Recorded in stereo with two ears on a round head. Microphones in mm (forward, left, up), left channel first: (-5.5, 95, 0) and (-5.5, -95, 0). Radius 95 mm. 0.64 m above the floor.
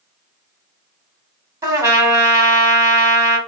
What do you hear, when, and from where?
1.6 s a trumpet: 15° right (ahead or behind), 1.2 m